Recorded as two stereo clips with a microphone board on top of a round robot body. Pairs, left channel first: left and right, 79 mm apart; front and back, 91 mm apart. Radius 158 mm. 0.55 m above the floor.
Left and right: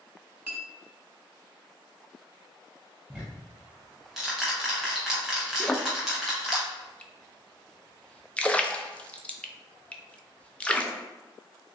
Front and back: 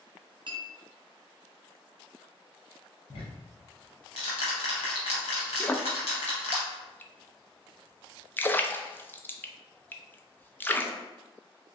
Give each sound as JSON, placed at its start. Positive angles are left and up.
{"t": 0.5, "sound": "a clink", "azimuth_deg": -160, "distance_m": 1.1}
{"t": 3.1, "sound": "ticking", "azimuth_deg": -5, "distance_m": 0.5}
{"t": 5.6, "sound": "a splash", "azimuth_deg": 35, "distance_m": 0.7}